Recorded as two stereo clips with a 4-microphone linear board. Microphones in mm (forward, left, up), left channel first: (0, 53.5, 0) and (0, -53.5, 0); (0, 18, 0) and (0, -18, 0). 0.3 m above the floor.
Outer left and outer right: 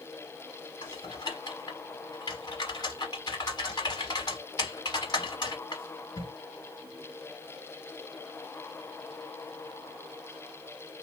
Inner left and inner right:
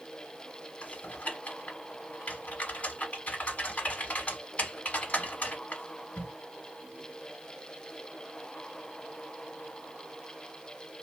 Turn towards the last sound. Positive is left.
turn(degrees=45)  # may be behind; listen again after turning